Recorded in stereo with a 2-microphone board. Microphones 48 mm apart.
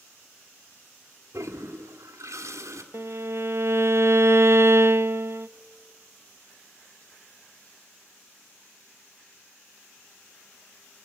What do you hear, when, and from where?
1.3 s a toilet flushing: 80° right, 1.7 m
2.9 s a violin: 60° right (ahead or behind), 0.6 m